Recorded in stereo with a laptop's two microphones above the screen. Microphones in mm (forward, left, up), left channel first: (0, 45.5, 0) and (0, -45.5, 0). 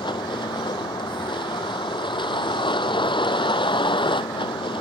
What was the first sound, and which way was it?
A vehicle, 70° left (ahead or behind).